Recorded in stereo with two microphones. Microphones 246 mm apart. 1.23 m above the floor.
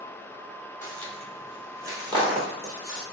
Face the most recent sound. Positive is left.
turn(degrees=-35)  # may be behind; listen again after turning